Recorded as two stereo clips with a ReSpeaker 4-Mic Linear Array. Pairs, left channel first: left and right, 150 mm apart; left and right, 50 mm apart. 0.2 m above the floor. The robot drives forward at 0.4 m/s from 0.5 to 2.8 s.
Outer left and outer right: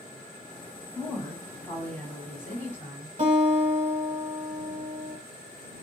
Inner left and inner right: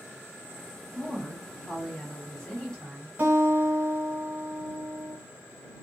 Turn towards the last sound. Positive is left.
turn(degrees=-40)  # may be behind; listen again after turning